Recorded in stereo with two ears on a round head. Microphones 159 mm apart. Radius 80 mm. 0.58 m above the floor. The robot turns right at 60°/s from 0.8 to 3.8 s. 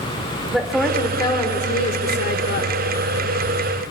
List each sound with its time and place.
0.5 s a woman speaking: straight ahead, 1.7 m; by 2.8 s 120° left, 1.7 m